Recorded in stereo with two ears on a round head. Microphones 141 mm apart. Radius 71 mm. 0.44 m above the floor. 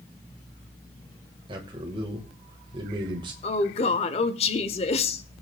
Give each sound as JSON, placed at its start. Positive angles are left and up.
{"t": 1.5, "sound": "a man speaking", "side_deg": -30, "distance_m": 1.9}
{"t": 3.4, "sound": "a woman speaking", "side_deg": 40, "distance_m": 1.2}